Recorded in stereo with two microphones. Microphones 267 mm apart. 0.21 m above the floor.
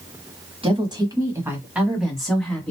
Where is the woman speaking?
20° right (ahead or behind), 1.1 m; by 2.7 s 5° left (ahead or behind), 1.4 m.